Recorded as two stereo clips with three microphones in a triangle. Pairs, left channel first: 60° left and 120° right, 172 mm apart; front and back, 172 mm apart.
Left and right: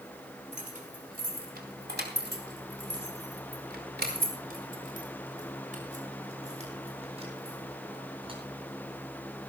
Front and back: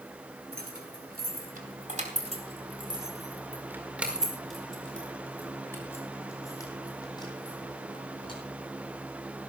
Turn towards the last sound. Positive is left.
turn(degrees=-60)